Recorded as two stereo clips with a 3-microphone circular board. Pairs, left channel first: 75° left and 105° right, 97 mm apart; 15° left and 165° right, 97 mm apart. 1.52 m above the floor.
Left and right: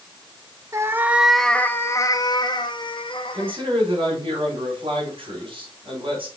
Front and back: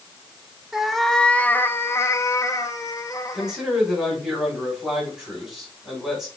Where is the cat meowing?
80° right, 0.7 m; by 3.6 s 65° left, 1.6 m.